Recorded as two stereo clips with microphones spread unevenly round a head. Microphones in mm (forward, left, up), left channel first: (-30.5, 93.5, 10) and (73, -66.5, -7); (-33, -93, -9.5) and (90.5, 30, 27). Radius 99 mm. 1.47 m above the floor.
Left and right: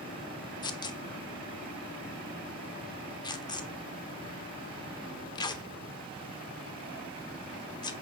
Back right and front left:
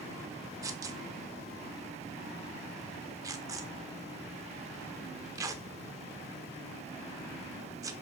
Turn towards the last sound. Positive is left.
turn(degrees=80)